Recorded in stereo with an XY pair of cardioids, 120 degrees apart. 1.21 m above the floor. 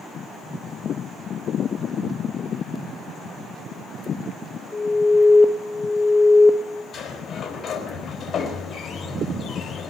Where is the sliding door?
35° left, 4 m.